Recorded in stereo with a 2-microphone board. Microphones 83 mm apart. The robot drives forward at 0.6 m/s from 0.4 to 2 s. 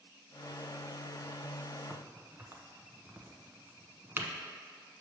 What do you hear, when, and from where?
1.9 s a crack: 30° right (ahead or behind), 0.8 m